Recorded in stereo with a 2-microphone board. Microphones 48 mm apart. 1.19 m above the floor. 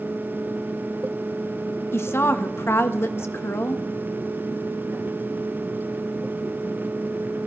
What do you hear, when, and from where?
1.9 s a woman speaking: 60° left (ahead or behind), 1.1 m